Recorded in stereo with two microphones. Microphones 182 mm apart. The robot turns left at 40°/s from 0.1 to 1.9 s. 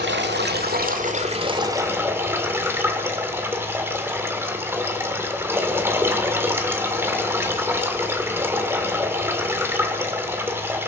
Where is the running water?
95° right, 1.7 m; by 10.9 s 165° right, 1.7 m.